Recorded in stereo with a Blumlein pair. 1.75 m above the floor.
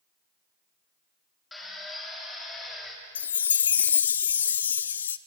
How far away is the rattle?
I don't hear a rattle.